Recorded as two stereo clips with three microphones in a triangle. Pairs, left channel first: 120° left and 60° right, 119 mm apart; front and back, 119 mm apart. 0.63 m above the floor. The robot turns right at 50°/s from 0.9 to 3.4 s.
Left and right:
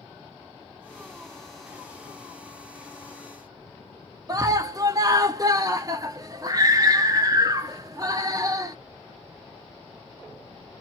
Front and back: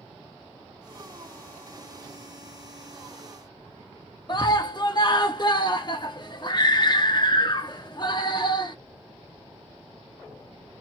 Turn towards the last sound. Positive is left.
turn(degrees=-20)